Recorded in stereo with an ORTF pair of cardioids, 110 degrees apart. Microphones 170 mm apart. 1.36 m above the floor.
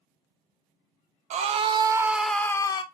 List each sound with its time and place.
1.3 s a scream: 45° right, 0.7 m; by 2.8 s 30° left, 0.7 m